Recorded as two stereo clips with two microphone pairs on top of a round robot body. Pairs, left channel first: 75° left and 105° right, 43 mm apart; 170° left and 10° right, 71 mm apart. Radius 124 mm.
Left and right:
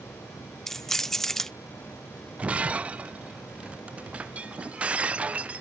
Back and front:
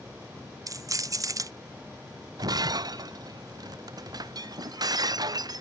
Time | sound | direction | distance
0.7 | keys jangling | 10° left | ?
2.4 | breaking glass | 40° right | ?